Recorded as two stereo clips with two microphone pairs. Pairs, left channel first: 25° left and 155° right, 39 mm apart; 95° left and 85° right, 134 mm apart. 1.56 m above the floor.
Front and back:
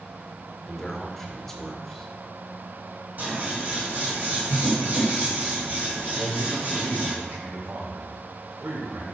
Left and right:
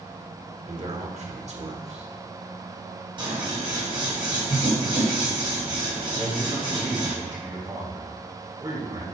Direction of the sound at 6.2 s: 145° right.